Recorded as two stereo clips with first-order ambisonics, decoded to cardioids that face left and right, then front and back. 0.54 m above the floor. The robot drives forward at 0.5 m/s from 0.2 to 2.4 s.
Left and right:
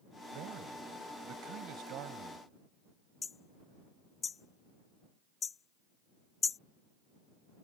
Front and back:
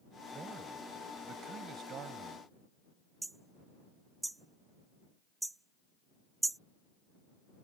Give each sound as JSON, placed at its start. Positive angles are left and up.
{"t": 0.3, "sound": "a man speaking", "azimuth_deg": -115}
{"t": 3.2, "sound": "hammering", "azimuth_deg": 110}